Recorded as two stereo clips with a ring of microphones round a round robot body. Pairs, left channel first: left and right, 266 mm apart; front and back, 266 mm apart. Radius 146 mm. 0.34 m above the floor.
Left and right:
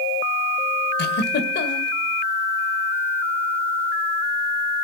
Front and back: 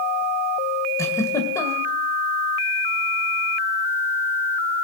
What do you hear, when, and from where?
1.0 s a giggle: 75° left, 1.7 m